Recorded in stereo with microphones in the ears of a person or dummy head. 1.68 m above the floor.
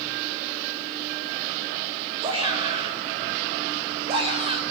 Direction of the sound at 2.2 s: 25° right (ahead or behind).